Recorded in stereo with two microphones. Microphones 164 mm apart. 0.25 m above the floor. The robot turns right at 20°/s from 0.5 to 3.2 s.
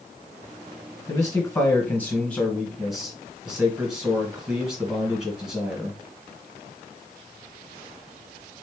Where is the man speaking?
145° left, 1.7 m; by 6.0 s 175° right, 1.7 m.